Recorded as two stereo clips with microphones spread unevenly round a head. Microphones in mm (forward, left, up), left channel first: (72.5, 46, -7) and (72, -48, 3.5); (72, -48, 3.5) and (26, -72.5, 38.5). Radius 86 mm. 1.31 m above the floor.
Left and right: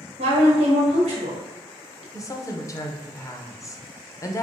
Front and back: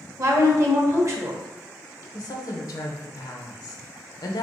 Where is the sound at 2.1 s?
30° left, 0.6 m.